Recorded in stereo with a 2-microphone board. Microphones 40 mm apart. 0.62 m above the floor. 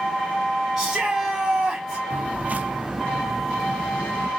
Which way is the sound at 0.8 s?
10° right (ahead or behind).